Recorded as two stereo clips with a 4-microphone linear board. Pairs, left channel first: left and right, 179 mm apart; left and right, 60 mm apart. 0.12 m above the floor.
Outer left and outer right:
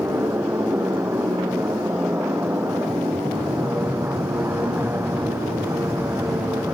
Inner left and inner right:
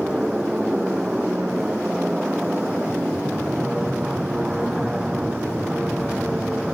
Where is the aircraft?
15° right (ahead or behind).